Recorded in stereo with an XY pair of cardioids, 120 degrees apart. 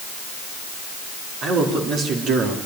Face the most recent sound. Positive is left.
turn(degrees=-75)